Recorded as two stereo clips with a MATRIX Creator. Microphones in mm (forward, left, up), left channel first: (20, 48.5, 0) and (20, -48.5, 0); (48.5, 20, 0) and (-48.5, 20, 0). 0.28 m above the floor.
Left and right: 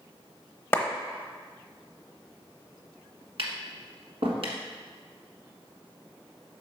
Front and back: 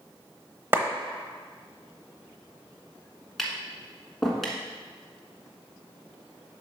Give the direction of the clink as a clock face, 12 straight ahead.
I don't hear a clink.